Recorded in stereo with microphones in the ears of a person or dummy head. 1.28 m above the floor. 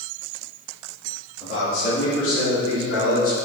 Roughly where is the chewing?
No chewing in this recording.